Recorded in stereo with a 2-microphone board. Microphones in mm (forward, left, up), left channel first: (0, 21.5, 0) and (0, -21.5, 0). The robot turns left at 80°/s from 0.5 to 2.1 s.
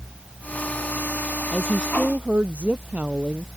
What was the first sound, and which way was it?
A woman speaking, 15° left.